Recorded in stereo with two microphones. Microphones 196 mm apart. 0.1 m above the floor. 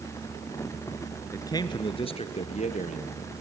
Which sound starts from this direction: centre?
A man speaking, at 1.3 s.